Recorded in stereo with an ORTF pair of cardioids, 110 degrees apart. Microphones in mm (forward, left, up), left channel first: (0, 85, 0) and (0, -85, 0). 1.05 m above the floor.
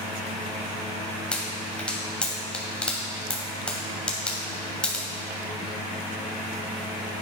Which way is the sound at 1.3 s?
5° left.